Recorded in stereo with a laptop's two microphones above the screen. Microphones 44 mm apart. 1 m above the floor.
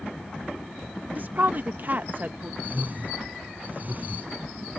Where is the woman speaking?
45° right (ahead or behind).